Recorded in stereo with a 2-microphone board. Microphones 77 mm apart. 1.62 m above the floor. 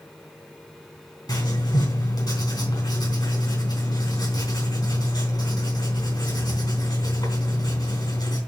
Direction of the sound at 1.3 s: 65° left (ahead or behind).